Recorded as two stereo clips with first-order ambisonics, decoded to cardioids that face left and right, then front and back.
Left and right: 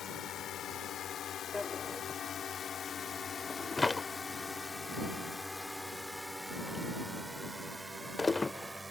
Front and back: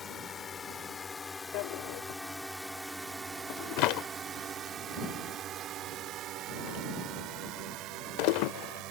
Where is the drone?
55° left; by 8.9 s 170° right.